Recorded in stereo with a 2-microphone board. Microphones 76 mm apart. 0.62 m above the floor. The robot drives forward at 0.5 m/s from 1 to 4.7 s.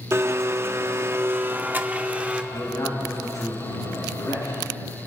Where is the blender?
35° right (ahead or behind), 0.6 m; by 2.4 s 15° right (ahead or behind), 1.1 m.